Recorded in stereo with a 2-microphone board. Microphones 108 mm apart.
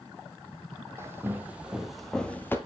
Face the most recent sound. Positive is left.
turn(degrees=20)  # may be behind; listen again after turning